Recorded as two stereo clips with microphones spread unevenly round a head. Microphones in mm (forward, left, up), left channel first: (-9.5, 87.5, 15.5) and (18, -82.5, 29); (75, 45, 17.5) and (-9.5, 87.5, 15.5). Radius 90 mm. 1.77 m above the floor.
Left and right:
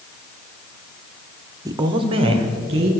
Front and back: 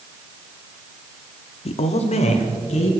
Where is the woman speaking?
10° right, 0.6 m; by 2.9 s 25° right, 2.5 m.